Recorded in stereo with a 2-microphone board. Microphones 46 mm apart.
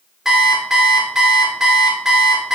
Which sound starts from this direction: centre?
An alarm clock, at 0.2 s.